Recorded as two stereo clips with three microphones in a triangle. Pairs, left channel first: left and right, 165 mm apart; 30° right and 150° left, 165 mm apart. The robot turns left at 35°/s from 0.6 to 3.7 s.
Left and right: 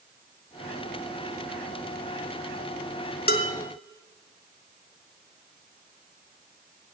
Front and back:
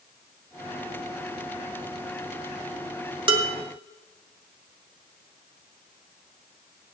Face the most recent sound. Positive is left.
turn(degrees=75)